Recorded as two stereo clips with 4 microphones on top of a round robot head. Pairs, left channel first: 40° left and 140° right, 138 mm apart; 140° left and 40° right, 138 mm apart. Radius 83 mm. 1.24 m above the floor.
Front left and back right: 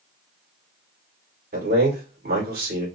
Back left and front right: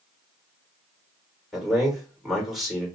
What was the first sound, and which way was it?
A man speaking, 130° right.